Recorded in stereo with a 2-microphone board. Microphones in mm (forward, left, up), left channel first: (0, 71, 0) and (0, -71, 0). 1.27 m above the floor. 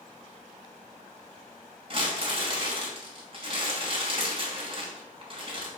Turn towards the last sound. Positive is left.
turn(degrees=-40)  # may be behind; listen again after turning